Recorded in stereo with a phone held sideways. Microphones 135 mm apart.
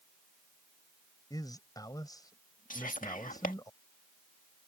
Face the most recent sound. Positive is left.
turn(degrees=80)